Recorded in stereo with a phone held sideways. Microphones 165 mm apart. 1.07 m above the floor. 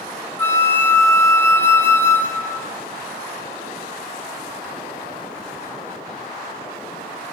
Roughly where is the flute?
Centre.